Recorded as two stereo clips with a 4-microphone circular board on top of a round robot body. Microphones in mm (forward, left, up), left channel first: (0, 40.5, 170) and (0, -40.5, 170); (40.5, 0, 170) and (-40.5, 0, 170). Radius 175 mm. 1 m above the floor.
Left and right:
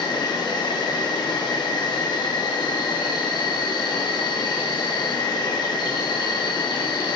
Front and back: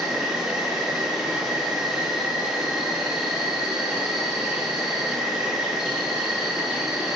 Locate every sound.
0.0 s an insect: 95° left, 0.9 m